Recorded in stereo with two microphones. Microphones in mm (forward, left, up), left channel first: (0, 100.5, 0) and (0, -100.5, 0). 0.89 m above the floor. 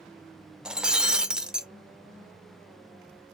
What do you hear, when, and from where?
0.7 s breaking glass: 5° right (ahead or behind), 0.5 m